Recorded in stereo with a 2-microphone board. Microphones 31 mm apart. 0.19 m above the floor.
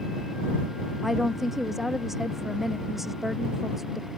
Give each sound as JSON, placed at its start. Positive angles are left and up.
{"t": 1.0, "sound": "a woman speaking", "side_deg": -10}